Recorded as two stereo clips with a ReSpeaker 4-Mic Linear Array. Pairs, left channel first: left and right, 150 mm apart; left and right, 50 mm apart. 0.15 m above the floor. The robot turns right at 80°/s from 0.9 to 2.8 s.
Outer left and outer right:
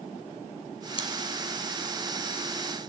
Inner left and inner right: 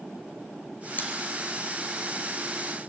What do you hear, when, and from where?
1.0 s chewing: 35° left (ahead or behind), 3 m; by 1.1 s 45° left (ahead or behind), 3 m